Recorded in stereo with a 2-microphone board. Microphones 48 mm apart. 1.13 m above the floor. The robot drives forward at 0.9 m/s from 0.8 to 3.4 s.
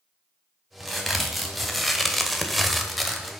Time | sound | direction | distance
0.8 | a crack | centre (ahead or behind) | 1.7 m